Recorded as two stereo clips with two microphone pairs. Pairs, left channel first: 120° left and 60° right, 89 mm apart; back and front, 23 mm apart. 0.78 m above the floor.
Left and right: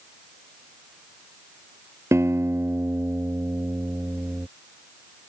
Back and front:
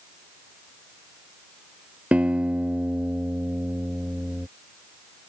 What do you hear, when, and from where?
2.1 s a guitar: straight ahead